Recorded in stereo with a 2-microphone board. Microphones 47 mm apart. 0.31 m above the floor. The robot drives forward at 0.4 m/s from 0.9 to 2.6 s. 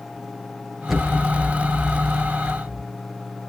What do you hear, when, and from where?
0.9 s an explosion: centre (ahead or behind), 4 m